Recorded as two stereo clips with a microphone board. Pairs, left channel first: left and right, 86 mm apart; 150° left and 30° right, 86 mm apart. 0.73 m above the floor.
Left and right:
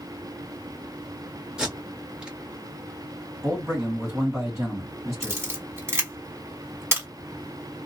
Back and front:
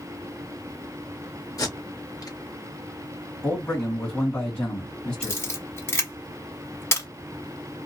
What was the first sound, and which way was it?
Tape being pulled, 170° right.